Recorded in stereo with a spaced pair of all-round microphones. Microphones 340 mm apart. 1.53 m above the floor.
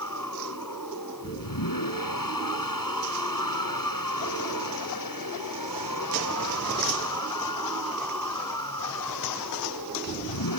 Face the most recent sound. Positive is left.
turn(degrees=70)  # may be behind; listen again after turning